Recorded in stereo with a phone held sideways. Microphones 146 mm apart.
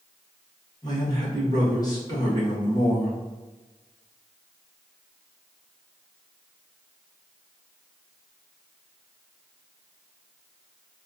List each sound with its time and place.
0.8 s a man speaking: 25° left (ahead or behind), 1.4 m